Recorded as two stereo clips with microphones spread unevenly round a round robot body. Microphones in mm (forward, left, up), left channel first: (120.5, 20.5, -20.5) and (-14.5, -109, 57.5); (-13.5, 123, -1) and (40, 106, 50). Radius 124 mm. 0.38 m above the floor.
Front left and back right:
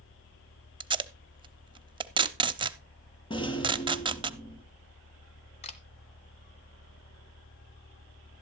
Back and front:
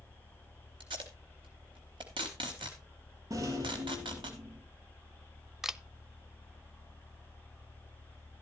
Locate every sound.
0.8 s tape being pulled: 65° right, 0.8 m
3.3 s a rattle: 25° right, 1.8 m
5.6 s a camera shutter: 85° left, 0.7 m